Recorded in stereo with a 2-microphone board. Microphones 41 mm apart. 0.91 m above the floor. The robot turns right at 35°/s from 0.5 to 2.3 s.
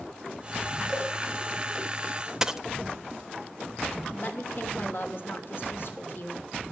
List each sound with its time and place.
0.9 s a cowbell: centre (ahead or behind), 6.5 m; by 1.1 s 10° left (ahead or behind), 6.5 m
2.4 s a dropped coin: 15° right (ahead or behind), 0.6 m
4.1 s a woman speaking: 55° left (ahead or behind), 2.5 m